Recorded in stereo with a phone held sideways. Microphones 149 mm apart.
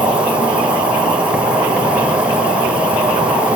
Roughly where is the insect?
Centre.